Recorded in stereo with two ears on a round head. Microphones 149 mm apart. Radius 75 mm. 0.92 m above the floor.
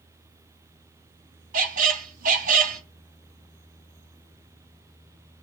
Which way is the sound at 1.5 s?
50° right (ahead or behind).